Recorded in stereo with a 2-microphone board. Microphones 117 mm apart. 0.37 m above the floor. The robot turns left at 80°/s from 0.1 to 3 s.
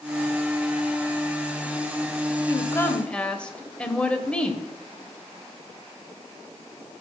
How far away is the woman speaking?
About 1.3 m.